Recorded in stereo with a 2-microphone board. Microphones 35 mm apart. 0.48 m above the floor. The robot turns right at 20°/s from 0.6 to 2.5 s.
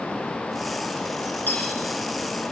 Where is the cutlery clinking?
80° left, 4 m; by 1.8 s 75° left (ahead or behind), 4 m.